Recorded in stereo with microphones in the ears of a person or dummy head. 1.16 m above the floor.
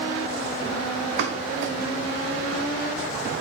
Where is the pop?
65° right (ahead or behind), 0.5 m.